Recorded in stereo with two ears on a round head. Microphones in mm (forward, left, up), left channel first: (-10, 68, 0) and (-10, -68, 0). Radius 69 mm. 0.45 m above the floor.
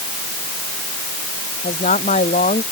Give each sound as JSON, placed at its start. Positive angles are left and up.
{"t": 1.6, "sound": "a woman speaking", "side_deg": 40}